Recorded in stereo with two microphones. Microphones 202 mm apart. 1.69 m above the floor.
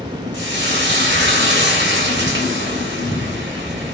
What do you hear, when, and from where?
0.3 s frying: 60° right (ahead or behind), 0.8 m